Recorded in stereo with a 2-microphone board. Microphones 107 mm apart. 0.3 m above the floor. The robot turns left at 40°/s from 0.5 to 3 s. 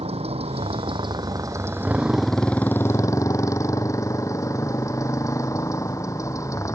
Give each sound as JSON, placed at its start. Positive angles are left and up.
{"t": 0.0, "sound": "a motorcycle", "azimuth_deg": -110}